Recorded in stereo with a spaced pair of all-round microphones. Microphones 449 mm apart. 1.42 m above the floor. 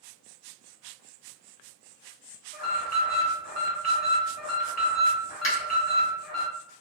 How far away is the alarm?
About 0.8 m.